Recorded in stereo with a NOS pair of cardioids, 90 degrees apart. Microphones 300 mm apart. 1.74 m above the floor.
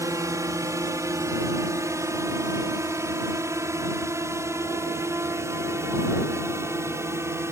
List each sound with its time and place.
0.0 s a drone: 10° right